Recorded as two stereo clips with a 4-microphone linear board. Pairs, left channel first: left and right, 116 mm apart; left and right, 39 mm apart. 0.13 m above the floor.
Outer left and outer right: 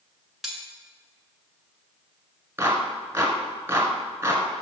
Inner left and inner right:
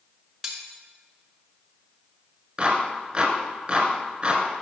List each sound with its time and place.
0.4 s cutlery clinking: centre (ahead or behind), 0.9 m
2.6 s a clap: 25° right (ahead or behind), 1.1 m